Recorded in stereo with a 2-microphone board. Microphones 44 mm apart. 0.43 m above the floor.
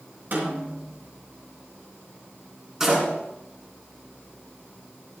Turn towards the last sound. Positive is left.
turn(degrees=-15)  # may be behind; listen again after turning